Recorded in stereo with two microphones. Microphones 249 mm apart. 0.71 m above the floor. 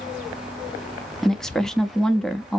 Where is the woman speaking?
Centre (ahead or behind), 0.6 m.